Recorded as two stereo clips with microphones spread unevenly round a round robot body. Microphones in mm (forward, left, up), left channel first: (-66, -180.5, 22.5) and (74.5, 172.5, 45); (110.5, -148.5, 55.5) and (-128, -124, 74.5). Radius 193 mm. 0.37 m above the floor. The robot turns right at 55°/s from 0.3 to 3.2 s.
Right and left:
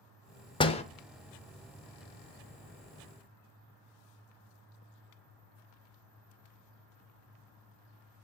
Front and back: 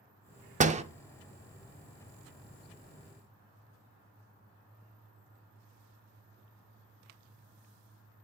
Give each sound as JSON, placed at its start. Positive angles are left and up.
{"t": 0.6, "sound": "a door slam", "azimuth_deg": -160, "distance_m": 0.6}